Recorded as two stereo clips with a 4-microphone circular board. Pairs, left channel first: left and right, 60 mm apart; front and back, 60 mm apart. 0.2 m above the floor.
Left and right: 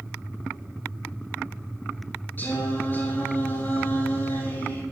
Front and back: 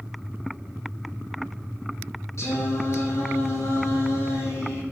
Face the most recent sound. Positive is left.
turn(degrees=35)